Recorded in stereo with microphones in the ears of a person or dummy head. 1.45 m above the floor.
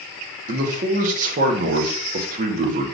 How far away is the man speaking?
About 1.0 m.